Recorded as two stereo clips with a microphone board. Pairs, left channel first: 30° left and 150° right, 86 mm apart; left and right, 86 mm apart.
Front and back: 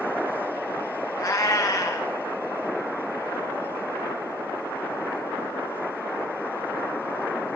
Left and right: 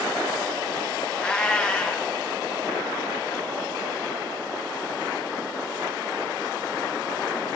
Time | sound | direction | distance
1.2 | a cat meowing | 20° left | 1.9 m